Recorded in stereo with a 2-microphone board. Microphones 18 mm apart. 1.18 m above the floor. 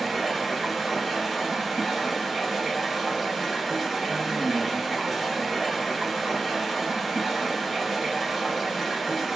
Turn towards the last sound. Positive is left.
turn(degrees=-10)  # may be behind; listen again after turning